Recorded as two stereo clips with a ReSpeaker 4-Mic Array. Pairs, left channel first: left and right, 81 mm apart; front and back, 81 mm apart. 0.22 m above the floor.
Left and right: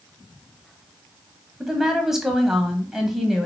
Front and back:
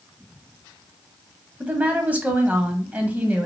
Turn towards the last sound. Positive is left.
turn(degrees=-165)